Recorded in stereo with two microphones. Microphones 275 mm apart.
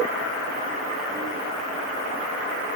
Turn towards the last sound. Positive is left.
No sound to turn to.